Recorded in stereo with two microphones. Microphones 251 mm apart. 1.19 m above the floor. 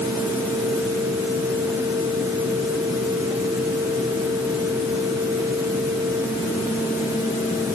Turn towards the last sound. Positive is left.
No sound to turn to.